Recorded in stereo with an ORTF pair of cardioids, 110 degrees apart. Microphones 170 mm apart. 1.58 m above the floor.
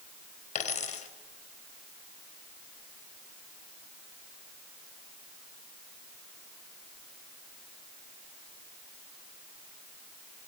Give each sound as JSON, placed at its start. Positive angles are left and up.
{"t": 0.6, "sound": "a dropped coin", "azimuth_deg": 50, "distance_m": 4.0}